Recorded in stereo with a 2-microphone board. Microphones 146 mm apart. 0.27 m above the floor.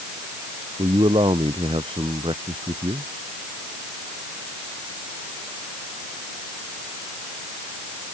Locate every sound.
0.8 s a man speaking: 35° right (ahead or behind)